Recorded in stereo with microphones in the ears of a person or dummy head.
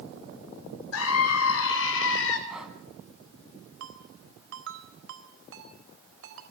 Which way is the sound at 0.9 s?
80° left.